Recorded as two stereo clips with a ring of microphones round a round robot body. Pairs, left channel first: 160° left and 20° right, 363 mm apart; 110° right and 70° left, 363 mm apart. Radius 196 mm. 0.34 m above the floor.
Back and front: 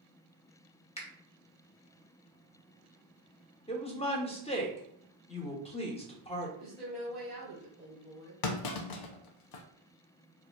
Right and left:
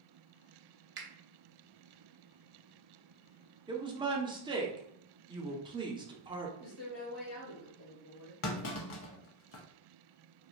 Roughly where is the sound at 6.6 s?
Right.